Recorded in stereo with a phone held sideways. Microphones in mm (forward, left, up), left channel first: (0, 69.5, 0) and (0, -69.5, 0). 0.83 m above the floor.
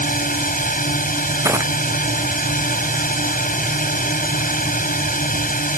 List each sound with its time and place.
0.0 s a drone: 80° left
1.4 s crushing: 20° right (ahead or behind)